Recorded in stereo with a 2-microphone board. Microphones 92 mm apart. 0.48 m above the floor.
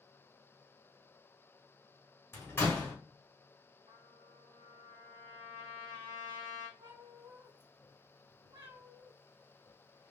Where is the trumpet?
60° right (ahead or behind), 1.3 m.